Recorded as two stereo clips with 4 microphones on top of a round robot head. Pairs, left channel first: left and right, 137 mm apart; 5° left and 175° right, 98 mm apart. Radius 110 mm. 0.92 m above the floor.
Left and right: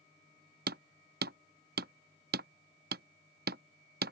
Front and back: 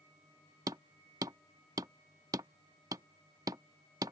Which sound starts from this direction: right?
Hammering, at 0.7 s.